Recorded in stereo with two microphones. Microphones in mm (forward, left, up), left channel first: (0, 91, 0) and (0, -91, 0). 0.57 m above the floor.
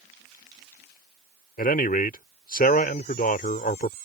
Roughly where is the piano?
No piano in this recording.